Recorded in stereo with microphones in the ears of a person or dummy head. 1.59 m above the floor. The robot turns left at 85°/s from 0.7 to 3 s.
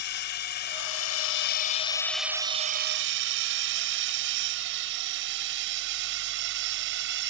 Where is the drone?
55° left (ahead or behind); by 7.3 s 65° right (ahead or behind).